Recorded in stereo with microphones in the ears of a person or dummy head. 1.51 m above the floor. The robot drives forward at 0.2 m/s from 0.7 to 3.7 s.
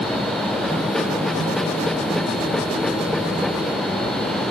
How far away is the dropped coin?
No dropped coin in this recording.